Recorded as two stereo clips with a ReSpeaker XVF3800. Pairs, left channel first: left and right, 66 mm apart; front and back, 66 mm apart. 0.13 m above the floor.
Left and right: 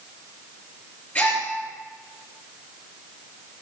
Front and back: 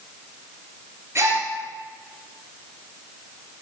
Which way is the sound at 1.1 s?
150° left.